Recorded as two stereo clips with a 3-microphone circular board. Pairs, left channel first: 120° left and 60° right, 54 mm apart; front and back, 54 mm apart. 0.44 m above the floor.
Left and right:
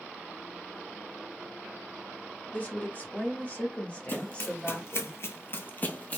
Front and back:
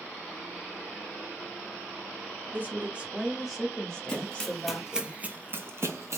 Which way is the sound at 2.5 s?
155° left.